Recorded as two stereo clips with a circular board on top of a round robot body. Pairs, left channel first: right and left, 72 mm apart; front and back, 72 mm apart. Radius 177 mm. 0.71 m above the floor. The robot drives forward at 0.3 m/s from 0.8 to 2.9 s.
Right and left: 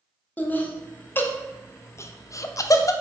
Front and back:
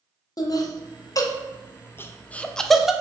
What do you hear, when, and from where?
0.4 s laughter: 25° right, 0.8 m; by 2.9 s 95° right, 0.5 m